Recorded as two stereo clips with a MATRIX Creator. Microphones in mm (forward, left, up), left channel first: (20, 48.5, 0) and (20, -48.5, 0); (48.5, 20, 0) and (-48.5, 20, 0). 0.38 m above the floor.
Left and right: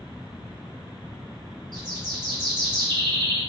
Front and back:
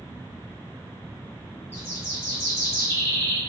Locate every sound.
1.7 s a bird: 60° right, 1.9 m